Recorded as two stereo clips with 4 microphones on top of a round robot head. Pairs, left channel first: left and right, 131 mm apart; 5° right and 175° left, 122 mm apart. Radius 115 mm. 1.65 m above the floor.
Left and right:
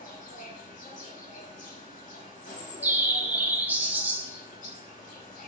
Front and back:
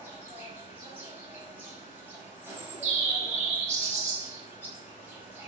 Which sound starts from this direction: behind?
A bird, at 2.4 s.